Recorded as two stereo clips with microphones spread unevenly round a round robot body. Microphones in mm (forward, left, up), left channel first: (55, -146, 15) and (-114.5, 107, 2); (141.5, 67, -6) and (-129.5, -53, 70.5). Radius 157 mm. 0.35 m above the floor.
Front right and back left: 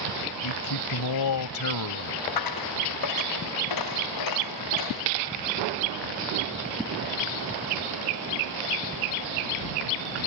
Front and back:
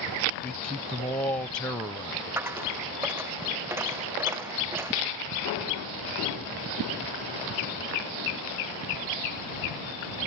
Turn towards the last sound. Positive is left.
turn(degrees=-75)